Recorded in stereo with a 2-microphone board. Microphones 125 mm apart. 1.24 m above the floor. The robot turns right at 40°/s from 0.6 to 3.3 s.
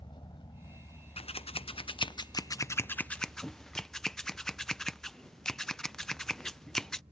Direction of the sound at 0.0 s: 40° left (ahead or behind).